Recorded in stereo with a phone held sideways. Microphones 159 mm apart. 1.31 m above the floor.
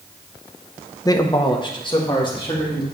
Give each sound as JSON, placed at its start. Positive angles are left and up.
{"t": 1.1, "sound": "a man speaking", "side_deg": 20, "distance_m": 0.6}